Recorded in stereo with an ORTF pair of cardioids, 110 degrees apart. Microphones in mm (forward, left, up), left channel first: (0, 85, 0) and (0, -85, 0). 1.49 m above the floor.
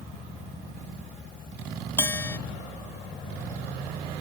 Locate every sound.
2.0 s a bell: 15° left